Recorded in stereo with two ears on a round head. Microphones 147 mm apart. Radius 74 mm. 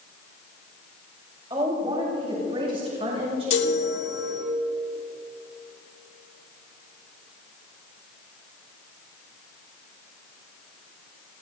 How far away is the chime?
About 2.5 m.